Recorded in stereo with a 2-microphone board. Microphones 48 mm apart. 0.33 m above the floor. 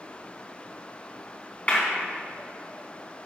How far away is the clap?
About 3 m.